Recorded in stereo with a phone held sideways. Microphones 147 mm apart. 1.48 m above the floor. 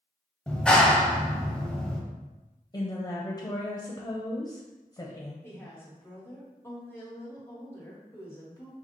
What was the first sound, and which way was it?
A clap, 5° left (ahead or behind).